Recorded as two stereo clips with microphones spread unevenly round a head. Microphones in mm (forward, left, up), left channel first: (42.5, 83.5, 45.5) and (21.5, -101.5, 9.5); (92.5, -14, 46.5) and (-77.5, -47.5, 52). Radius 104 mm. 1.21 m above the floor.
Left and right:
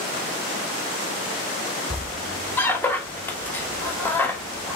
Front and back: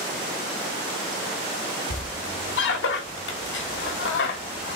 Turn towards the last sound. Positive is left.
turn(degrees=5)